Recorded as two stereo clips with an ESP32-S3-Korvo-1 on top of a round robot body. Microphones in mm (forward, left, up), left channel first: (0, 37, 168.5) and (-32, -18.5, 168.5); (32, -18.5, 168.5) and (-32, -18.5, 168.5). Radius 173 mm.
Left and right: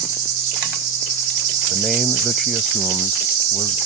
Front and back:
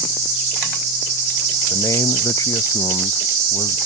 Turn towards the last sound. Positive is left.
turn(degrees=-30)